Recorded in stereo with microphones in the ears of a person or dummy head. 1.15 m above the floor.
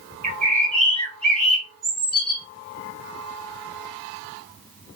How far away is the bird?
About 2 m.